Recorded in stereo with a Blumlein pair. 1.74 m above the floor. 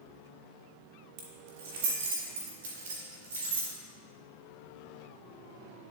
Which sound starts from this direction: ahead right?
Keys jangling, at 1.2 s.